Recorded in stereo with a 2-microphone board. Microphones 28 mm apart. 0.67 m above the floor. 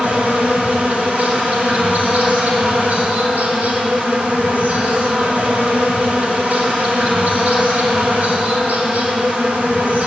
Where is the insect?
80° right, 1.7 m.